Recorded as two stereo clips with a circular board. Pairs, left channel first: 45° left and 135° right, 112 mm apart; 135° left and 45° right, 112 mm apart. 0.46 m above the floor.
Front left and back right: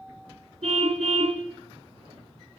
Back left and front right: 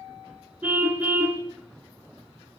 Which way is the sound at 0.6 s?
120° right.